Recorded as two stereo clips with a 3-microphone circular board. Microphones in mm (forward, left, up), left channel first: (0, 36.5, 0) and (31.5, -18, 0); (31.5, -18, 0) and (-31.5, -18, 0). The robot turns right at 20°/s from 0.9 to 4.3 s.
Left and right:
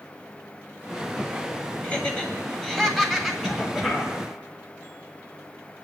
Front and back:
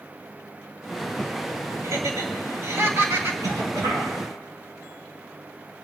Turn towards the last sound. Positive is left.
turn(degrees=-140)